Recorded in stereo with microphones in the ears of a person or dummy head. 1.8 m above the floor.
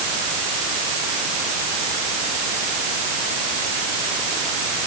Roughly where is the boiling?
I don't hear boiling.